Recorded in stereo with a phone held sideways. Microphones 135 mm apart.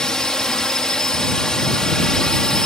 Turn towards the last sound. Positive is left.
turn(degrees=5)  # may be behind; listen again after turning